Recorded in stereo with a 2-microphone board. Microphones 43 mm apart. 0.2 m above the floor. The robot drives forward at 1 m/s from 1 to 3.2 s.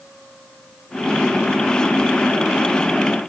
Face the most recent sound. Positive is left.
No sound to turn to.